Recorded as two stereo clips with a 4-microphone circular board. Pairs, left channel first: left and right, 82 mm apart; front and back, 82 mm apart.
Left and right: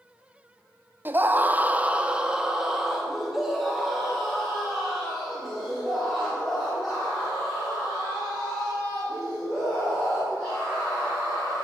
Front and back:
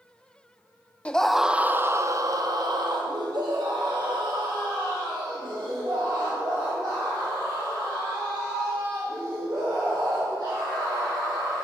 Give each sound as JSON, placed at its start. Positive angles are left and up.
{"t": 1.1, "sound": "a scream", "azimuth_deg": -55, "distance_m": 0.5}